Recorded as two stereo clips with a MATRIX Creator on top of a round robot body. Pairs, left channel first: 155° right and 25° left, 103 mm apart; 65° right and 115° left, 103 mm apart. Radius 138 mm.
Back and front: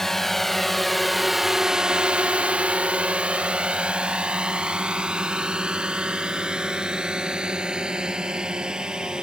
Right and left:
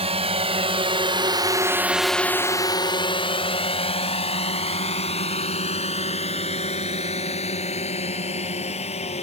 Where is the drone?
115° left; by 9.2 s 60° right.